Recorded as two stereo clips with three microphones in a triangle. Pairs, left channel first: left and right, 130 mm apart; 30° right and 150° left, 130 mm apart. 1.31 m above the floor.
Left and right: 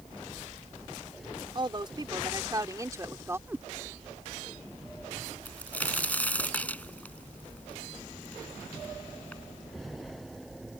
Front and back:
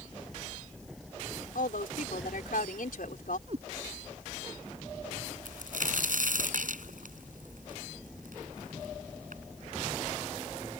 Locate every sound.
1.6 s a woman speaking: 35° right; by 3.4 s 20° right
3.5 s a cat meowing: 165° right
5.5 s a crack: 170° left